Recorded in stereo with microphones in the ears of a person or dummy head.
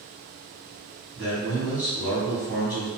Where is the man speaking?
Centre (ahead or behind), 1.6 m.